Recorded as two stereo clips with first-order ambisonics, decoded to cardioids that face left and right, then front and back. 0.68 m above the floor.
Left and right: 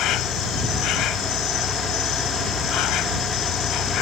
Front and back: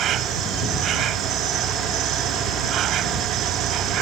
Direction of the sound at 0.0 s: 130° left.